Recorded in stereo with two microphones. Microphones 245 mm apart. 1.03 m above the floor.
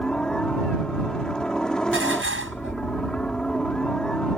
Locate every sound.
0.0 s a helicopter: 5° left (ahead or behind)
1.9 s dishes clattering: 55° right (ahead or behind)